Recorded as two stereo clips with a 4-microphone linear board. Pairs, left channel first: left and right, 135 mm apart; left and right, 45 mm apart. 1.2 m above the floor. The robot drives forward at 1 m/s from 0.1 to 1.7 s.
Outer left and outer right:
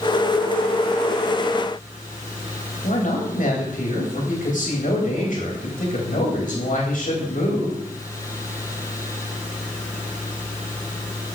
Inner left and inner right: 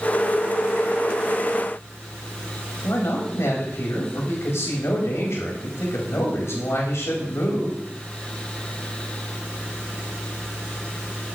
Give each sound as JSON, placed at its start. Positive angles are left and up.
{"t": 2.8, "sound": "a man speaking", "side_deg": 70, "distance_m": 3.5}